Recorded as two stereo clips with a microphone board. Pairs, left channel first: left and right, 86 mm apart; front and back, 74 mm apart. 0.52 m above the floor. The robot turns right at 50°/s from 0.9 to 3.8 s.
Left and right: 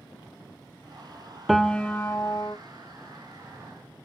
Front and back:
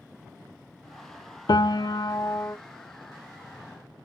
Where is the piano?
Straight ahead, 0.5 m; by 2.6 s 55° left, 0.5 m.